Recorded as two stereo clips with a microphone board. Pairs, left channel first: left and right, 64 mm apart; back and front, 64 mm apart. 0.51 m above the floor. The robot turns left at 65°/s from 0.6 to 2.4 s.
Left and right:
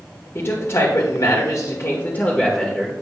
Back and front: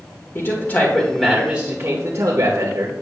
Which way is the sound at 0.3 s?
135° left.